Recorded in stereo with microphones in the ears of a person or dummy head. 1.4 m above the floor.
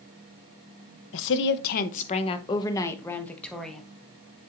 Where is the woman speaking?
65° left (ahead or behind), 0.9 m; by 3.8 s centre (ahead or behind), 1.5 m.